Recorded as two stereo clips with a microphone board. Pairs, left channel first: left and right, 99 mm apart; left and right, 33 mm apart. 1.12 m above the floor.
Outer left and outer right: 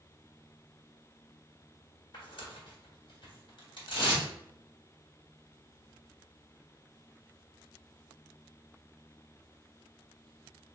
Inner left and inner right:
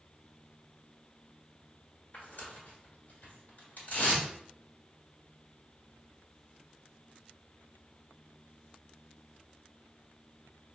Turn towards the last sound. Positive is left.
turn(degrees=60)  # may be behind; listen again after turning